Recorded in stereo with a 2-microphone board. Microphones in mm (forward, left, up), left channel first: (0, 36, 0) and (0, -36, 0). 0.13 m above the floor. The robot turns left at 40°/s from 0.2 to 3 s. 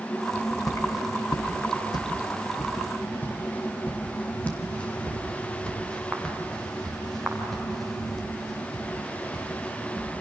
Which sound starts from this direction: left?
Footsteps, at 0.3 s.